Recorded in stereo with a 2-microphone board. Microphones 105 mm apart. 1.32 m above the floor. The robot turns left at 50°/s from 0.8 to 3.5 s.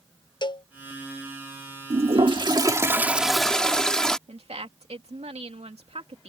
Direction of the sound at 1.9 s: 105° right.